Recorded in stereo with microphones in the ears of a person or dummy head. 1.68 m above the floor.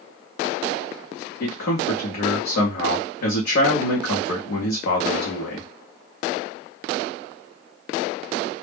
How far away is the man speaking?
About 0.7 m.